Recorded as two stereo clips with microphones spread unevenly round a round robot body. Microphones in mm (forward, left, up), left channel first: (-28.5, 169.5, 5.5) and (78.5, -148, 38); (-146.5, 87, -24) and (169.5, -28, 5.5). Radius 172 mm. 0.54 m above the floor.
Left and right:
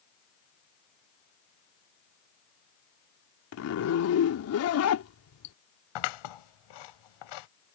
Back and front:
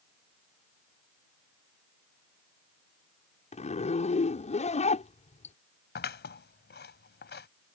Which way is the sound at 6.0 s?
100° left.